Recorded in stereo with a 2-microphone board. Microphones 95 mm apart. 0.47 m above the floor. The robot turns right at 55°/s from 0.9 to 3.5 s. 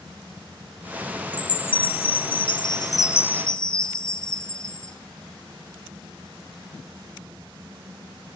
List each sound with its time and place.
1.3 s a chime: 50° left, 1.3 m; by 5.0 s 170° left, 1.3 m